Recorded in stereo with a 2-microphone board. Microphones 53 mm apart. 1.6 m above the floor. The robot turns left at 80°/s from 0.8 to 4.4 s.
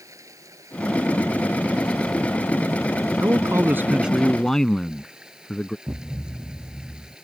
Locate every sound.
0.0 s running water: 85° right; by 7.2 s 15° right
3.2 s a man speaking: 95° right; by 5.8 s 170° left
5.9 s a thud: 55° right (ahead or behind)